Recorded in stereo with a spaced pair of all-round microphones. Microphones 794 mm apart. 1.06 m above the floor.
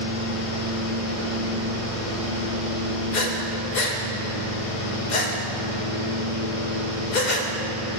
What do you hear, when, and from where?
0.0 s a fan: 45° left (ahead or behind), 1.0 m
3.1 s breathing: 65° left (ahead or behind), 0.8 m